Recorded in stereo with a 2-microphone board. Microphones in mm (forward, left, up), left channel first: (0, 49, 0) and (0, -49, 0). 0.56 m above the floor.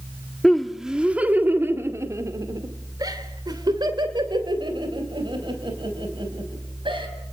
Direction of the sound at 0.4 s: 5° left (ahead or behind).